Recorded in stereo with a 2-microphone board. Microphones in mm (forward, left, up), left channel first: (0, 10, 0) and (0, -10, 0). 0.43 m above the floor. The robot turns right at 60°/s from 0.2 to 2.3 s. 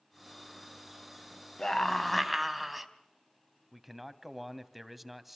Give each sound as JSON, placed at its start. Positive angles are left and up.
{"t": 1.6, "sound": "a scream", "azimuth_deg": 145, "distance_m": 3.0}
{"t": 3.7, "sound": "a man speaking", "side_deg": 0, "distance_m": 2.5}